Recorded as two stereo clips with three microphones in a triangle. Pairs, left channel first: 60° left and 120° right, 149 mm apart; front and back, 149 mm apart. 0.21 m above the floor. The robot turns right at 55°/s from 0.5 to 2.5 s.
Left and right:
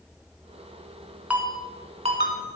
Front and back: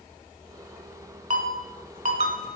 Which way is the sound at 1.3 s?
160° left.